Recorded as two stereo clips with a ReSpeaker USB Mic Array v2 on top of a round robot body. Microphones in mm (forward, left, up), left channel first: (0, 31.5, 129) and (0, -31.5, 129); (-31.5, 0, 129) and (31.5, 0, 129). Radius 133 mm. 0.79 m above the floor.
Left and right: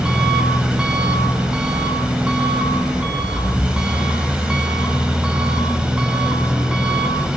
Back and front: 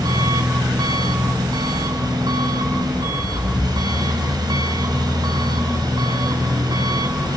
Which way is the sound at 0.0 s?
15° right.